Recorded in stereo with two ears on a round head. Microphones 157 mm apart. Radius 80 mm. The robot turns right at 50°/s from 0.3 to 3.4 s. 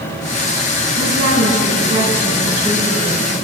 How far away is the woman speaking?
About 7.5 m.